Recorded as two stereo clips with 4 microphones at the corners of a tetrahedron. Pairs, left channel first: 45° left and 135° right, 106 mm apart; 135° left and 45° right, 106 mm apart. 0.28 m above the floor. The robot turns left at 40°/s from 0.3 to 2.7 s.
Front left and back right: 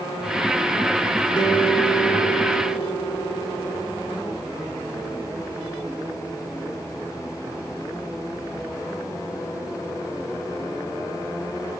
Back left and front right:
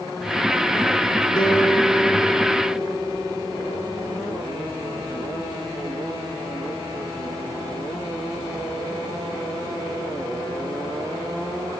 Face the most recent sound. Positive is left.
turn(degrees=40)